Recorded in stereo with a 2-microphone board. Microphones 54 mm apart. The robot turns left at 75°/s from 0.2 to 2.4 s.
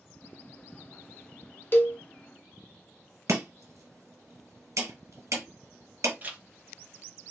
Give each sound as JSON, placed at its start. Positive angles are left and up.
{"t": 1.7, "sound": "a cowbell", "side_deg": 45, "distance_m": 0.5}
{"t": 3.3, "sound": "chopping", "side_deg": -70, "distance_m": 1.3}
{"t": 6.2, "sound": "a zipper", "side_deg": -30, "distance_m": 0.6}